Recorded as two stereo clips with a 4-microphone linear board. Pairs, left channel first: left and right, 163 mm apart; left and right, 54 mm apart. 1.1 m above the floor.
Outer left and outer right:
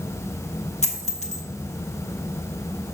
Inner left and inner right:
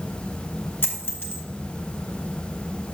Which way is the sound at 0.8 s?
45° left (ahead or behind).